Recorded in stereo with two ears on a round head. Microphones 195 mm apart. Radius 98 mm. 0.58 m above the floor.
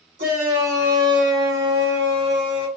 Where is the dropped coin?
No dropped coin in this recording.